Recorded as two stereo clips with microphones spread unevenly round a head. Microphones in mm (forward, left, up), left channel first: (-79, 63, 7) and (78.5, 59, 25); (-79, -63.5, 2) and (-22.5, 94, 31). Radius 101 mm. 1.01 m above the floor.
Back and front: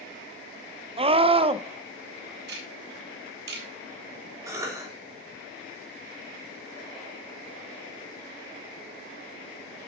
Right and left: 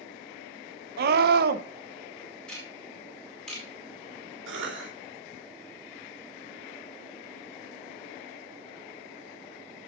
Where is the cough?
70° left, 2.5 m.